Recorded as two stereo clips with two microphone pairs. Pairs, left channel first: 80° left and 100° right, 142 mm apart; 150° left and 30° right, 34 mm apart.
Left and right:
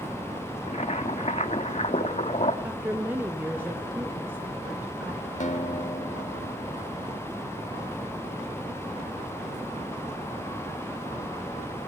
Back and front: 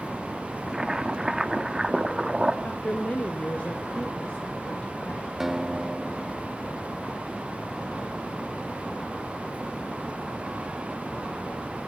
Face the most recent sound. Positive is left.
turn(degrees=50)